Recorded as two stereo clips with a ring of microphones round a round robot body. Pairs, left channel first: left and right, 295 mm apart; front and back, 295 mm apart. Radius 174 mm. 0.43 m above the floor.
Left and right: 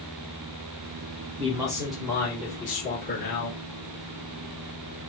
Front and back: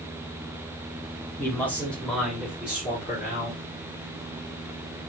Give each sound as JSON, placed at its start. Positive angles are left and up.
{"t": 1.4, "sound": "a man speaking", "azimuth_deg": -65, "distance_m": 1.2}